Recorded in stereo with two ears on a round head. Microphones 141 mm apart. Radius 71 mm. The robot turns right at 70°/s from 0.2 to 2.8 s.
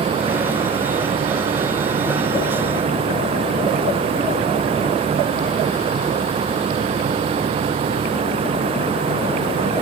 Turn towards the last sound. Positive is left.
No sound to turn to.